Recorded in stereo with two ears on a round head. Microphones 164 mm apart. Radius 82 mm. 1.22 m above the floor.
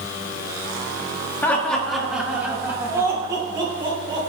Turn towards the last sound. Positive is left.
turn(degrees=-30)  # may be behind; listen again after turning